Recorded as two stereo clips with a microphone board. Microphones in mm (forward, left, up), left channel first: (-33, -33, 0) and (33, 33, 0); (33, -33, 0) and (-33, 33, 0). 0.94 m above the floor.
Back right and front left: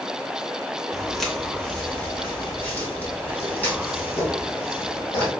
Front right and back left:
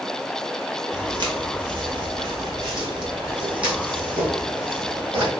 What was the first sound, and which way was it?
Footsteps, 135° left.